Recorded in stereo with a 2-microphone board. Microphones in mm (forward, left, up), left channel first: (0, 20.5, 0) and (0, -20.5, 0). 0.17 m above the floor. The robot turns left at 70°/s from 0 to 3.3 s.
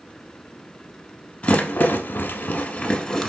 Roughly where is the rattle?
Left.